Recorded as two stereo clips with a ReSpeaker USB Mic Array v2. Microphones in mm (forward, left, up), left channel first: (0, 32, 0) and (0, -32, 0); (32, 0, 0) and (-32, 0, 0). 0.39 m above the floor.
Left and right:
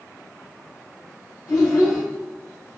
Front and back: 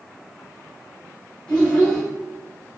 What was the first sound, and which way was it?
A child speaking, 65° left.